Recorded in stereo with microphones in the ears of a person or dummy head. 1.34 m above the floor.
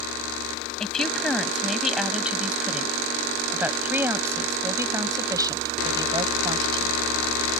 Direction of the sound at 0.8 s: Centre (ahead or behind).